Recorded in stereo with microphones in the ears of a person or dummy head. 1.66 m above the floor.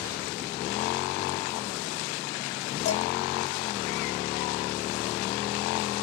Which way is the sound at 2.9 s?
70° left (ahead or behind).